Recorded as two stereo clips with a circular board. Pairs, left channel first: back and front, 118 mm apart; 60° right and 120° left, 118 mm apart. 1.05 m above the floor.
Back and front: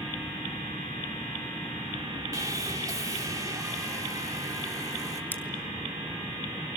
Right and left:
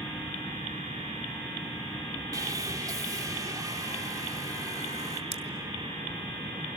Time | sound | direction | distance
2.3 | sawing | 60° left | 2.5 m
5.3 | scissors | 105° left | 2.5 m